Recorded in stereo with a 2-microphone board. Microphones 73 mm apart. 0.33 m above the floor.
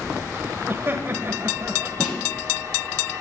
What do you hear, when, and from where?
0.7 s laughter: 30° right (ahead or behind), 1.4 m
2.0 s a snare drum: centre (ahead or behind), 9.5 m